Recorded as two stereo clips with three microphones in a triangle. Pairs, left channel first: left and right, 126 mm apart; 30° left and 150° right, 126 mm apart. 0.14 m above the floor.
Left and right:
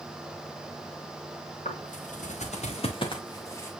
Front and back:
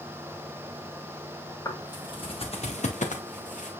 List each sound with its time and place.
1.6 s footsteps: 90° left, 2.5 m; by 3.7 s 20° left, 2.0 m